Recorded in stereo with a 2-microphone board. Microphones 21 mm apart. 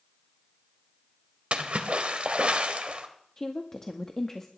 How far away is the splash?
About 1.4 m.